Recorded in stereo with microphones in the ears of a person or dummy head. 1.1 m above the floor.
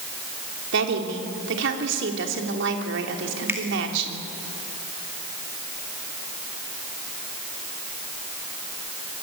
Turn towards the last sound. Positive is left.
turn(degrees=-10)  # may be behind; listen again after turning